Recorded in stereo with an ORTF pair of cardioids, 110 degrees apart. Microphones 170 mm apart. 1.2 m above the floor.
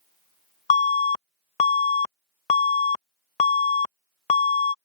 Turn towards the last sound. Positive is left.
turn(degrees=40)